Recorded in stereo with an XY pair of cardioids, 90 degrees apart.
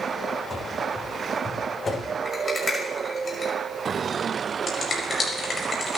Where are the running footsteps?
25° left, 6.5 m; by 2.1 s 35° left, 8 m.